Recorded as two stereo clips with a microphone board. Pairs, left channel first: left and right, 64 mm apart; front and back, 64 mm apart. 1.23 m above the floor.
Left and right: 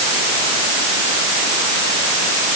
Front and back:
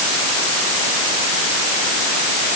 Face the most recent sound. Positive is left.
No sound to turn to.